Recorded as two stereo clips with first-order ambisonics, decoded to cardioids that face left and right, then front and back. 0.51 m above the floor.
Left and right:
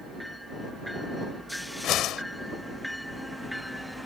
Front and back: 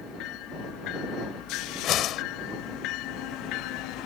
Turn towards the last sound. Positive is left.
turn(degrees=45)